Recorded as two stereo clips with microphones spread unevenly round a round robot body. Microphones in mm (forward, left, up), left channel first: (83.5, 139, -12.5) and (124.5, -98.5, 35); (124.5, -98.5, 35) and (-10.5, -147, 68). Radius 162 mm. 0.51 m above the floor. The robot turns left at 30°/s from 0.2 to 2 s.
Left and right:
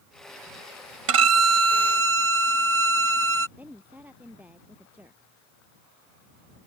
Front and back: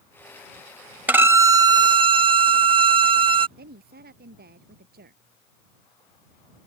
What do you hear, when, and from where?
1.1 s a violin: 85° right; by 3.5 s 115° right
3.6 s a woman speaking: 165° right